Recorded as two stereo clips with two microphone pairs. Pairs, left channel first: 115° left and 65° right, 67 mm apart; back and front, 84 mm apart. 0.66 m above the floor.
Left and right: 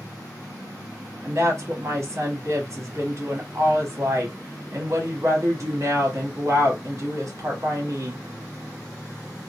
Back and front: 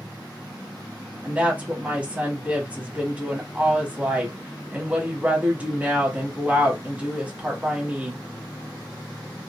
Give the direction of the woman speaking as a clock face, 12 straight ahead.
2 o'clock.